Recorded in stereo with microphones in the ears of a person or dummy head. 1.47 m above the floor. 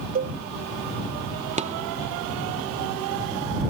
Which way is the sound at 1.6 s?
40° right (ahead or behind).